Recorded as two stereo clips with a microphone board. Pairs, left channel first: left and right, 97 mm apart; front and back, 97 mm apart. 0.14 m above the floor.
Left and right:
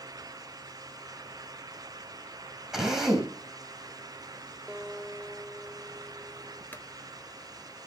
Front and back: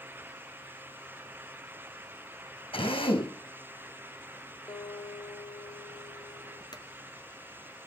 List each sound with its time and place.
2.7 s a drill: 5° right, 4.5 m
4.7 s a guitar: 15° right, 5 m
6.7 s a clunk: 25° left, 1.6 m